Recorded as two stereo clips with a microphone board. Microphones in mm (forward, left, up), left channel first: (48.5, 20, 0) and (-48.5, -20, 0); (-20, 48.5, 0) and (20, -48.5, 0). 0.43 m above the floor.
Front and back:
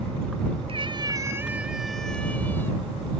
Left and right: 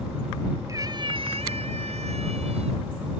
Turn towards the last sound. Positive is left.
turn(degrees=-45)